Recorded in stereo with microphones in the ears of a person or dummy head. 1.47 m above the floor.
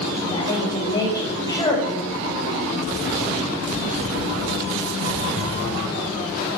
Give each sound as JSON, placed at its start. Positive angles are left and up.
{"t": 0.3, "sound": "a woman speaking", "side_deg": 25, "distance_m": 6.0}